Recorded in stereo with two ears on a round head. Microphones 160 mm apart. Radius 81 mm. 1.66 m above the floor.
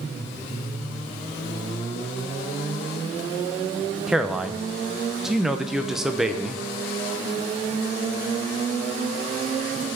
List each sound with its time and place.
4.1 s a man speaking: centre (ahead or behind), 0.9 m